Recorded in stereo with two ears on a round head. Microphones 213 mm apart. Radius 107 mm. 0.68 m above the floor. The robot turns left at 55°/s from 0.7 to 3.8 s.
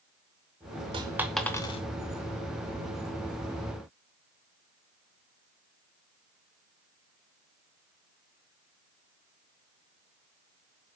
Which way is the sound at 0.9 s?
20° right (ahead or behind).